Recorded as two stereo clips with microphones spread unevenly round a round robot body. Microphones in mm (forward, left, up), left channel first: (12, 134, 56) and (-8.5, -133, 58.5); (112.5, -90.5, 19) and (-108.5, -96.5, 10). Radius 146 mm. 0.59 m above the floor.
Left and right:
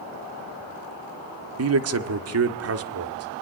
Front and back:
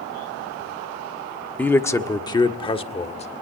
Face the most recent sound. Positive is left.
turn(degrees=-60)